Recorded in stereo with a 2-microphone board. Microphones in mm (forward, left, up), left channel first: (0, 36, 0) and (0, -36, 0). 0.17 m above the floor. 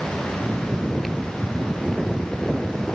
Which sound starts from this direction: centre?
Snoring, at 0.4 s.